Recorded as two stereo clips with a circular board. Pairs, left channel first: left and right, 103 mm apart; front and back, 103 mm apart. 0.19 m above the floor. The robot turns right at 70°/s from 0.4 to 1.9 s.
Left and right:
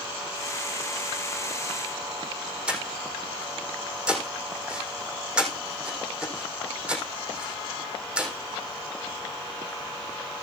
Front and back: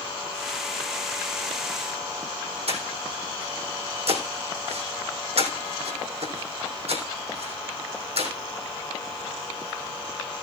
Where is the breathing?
170° right, 3.5 m.